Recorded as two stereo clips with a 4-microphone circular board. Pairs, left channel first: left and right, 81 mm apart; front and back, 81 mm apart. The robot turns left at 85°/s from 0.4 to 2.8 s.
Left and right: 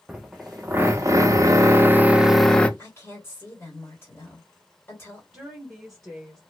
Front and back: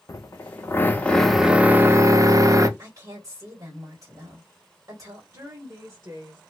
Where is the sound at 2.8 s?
140° left, 2 m.